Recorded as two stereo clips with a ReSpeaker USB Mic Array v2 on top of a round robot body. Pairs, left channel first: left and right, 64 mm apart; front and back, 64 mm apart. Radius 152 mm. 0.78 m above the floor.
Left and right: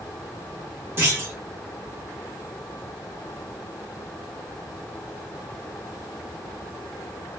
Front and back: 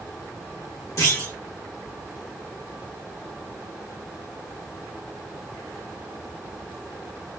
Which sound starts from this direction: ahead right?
A clunk, at 1.0 s.